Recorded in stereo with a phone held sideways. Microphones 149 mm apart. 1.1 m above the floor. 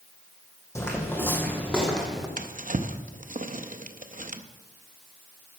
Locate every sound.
0.8 s footsteps: 20° left (ahead or behind), 2.5 m; by 2.3 s centre (ahead or behind), 2.5 m
2.4 s a drawer: 60° right (ahead or behind), 0.7 m